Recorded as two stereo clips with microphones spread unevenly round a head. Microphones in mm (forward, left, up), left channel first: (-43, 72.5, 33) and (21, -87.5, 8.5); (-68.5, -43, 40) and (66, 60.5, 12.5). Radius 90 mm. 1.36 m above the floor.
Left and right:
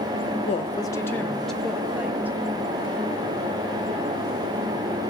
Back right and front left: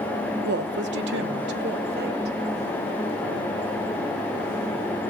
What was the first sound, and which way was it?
A woman speaking, 60° left.